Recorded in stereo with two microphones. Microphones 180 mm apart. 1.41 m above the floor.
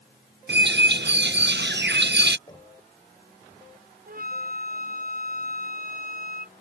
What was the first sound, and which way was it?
A bird, 75° right (ahead or behind).